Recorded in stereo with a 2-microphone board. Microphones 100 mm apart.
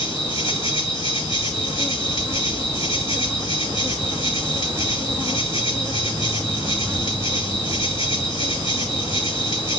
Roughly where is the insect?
Left.